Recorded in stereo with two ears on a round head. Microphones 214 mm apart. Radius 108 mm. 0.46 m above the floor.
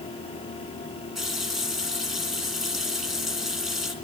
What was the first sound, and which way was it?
A running tap, centre (ahead or behind).